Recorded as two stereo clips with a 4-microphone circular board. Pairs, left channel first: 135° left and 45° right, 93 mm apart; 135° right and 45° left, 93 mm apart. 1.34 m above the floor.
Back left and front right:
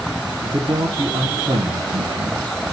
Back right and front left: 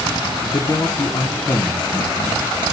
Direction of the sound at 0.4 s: 80° right.